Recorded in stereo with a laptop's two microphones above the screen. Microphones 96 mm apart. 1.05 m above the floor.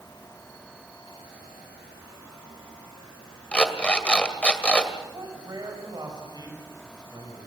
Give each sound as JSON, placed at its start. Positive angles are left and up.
{"t": 3.5, "sound": "an alarm clock", "side_deg": 10, "distance_m": 2.0}
{"t": 5.1, "sound": "a man speaking", "side_deg": -45, "distance_m": 5.5}